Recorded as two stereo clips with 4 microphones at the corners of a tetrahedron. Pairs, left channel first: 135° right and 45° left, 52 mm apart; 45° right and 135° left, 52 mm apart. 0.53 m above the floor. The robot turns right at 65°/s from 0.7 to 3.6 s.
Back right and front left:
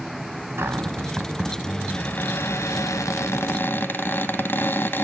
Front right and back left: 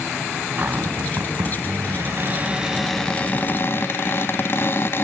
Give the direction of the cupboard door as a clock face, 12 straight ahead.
9 o'clock.